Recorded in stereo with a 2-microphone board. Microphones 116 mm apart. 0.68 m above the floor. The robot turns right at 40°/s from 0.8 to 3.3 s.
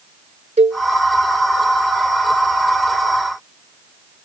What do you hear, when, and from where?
0.6 s a cowbell: 80° right